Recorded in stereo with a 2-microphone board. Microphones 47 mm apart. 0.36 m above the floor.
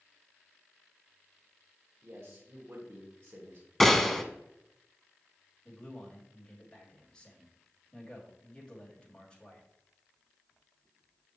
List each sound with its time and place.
2.0 s a man speaking: 60° right (ahead or behind), 1.6 m
3.8 s a gunshot: 5° left (ahead or behind), 0.8 m
5.7 s a man speaking: 20° left (ahead or behind), 2.5 m